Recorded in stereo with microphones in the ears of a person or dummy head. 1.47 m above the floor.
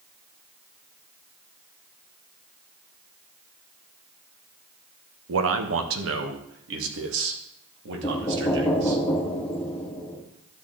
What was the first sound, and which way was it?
A man speaking, 85° right.